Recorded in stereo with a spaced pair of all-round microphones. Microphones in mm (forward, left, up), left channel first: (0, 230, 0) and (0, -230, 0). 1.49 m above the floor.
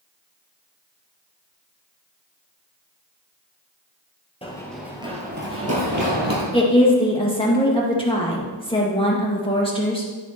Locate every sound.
4.4 s running footsteps: 10° left (ahead or behind), 1.7 m; by 6.4 s 50° right (ahead or behind), 2 m
6.5 s a woman speaking: 10° left (ahead or behind), 1.8 m